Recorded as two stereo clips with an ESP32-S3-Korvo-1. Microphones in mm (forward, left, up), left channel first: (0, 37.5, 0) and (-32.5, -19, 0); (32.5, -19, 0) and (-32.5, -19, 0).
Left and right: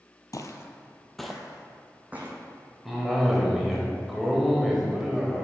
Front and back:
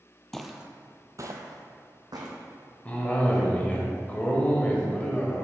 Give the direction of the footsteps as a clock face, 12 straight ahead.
9 o'clock.